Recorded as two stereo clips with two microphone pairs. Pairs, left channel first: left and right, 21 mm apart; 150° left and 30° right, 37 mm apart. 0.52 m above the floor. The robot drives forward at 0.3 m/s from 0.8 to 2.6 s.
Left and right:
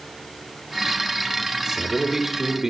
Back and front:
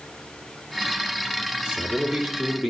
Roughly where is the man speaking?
Right.